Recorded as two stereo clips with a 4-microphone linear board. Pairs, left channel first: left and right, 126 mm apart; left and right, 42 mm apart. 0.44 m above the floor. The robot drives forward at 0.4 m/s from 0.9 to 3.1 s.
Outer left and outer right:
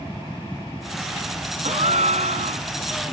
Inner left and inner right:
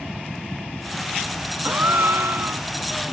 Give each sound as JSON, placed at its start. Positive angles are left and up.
{"t": 1.6, "sound": "a gasp", "side_deg": -65}